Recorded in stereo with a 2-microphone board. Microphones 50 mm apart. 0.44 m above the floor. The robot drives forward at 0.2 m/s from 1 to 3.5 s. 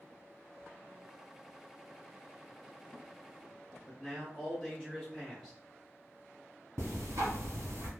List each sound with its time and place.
3.9 s a man speaking: 10° left (ahead or behind), 1.0 m
6.8 s ticking: 70° right (ahead or behind), 0.9 m